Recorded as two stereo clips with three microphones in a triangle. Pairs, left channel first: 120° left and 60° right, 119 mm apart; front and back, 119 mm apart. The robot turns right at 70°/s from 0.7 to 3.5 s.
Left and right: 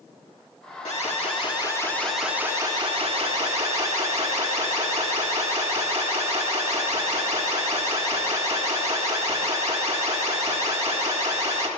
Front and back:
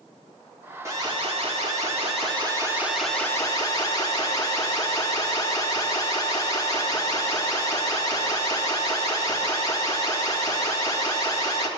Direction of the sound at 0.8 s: 120° left.